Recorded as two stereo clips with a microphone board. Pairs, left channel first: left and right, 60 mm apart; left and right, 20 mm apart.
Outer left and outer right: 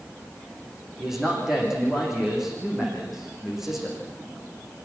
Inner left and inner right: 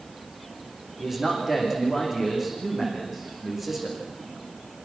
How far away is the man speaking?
About 9.5 m.